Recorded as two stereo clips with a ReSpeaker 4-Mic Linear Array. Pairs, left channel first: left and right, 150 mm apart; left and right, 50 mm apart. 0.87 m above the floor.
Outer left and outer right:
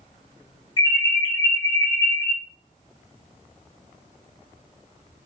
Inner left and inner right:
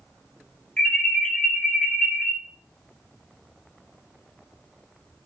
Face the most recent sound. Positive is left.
turn(degrees=30)  # may be behind; listen again after turning